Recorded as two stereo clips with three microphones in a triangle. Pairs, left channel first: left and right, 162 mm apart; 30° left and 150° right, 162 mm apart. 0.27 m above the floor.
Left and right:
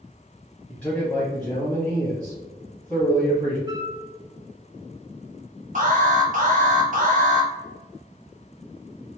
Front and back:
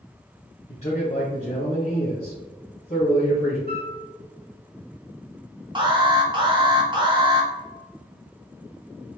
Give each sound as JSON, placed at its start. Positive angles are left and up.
{"t": 0.7, "sound": "a man speaking", "azimuth_deg": 10, "distance_m": 1.5}
{"t": 3.7, "sound": "a flute", "azimuth_deg": -155, "distance_m": 0.7}
{"t": 5.8, "sound": "an alarm", "azimuth_deg": -95, "distance_m": 1.0}